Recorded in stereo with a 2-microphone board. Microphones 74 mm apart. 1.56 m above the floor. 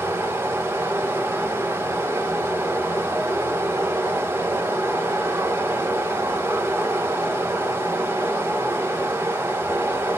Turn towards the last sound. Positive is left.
turn(degrees=-30)  # may be behind; listen again after turning